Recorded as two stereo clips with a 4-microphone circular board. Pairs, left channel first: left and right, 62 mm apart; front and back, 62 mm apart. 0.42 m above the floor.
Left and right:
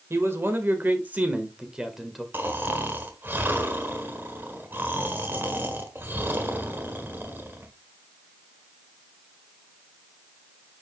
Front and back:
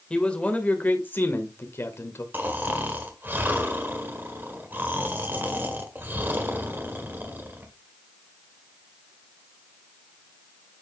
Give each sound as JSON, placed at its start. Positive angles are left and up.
{"t": 0.1, "sound": "a man speaking", "azimuth_deg": -70, "distance_m": 1.9}
{"t": 2.3, "sound": "snoring", "azimuth_deg": -135, "distance_m": 1.5}